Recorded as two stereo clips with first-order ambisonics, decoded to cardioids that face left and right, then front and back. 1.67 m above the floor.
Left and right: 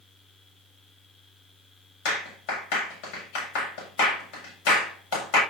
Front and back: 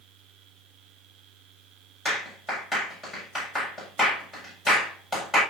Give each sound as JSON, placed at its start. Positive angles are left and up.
{"t": 2.0, "sound": "a clap", "azimuth_deg": 95, "distance_m": 7.5}